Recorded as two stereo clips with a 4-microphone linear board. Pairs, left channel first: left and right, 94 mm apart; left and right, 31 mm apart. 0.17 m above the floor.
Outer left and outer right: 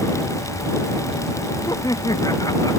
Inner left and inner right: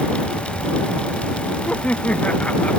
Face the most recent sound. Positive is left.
turn(degrees=40)  # may be behind; listen again after turning